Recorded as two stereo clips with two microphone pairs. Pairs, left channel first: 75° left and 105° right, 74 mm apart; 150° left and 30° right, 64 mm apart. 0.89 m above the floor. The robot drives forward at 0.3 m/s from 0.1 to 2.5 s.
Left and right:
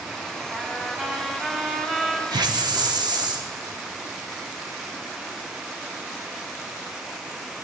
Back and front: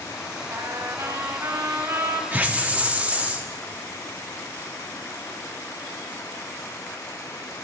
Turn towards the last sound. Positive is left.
turn(degrees=-95)